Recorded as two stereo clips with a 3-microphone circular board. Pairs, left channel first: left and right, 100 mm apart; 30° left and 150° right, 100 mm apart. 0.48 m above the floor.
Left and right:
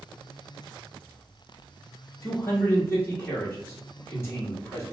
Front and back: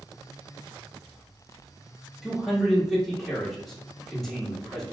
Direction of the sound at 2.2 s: 115° left.